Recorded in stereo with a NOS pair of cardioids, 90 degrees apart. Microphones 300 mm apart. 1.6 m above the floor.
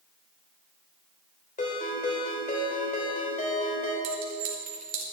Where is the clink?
60° right, 3 m.